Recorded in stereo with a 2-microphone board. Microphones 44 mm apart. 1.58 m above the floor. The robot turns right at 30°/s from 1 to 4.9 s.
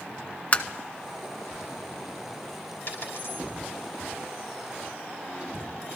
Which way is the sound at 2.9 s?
50° left (ahead or behind).